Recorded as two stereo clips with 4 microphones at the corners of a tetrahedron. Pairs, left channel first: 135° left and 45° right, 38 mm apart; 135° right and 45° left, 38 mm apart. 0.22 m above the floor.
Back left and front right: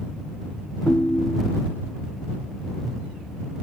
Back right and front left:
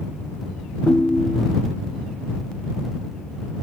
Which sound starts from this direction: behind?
A ringtone, at 0.9 s.